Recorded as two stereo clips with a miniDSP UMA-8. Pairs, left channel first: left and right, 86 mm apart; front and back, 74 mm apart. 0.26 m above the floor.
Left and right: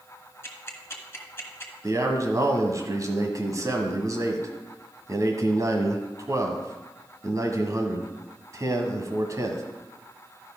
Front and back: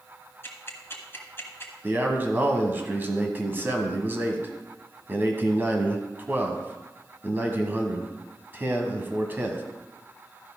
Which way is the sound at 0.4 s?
40° left.